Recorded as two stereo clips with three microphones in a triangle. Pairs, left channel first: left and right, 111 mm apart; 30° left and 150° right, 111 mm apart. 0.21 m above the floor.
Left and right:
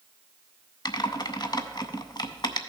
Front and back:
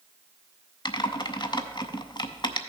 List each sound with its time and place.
0.8 s typing on a keyboard: 55° left, 0.5 m